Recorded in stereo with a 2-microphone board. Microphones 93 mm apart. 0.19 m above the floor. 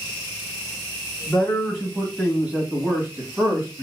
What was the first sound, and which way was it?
A man speaking, 10° left (ahead or behind).